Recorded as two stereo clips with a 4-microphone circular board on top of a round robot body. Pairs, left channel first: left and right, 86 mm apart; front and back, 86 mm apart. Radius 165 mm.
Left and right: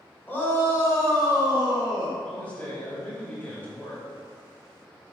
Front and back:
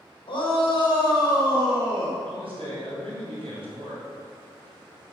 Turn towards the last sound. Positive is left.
turn(degrees=165)